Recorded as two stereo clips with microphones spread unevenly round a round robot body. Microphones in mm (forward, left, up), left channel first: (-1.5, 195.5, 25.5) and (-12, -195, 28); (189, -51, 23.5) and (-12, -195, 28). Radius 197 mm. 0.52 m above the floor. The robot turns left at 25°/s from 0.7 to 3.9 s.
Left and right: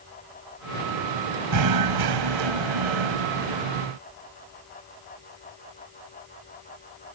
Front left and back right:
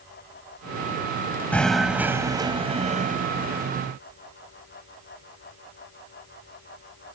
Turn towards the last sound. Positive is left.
turn(degrees=-110)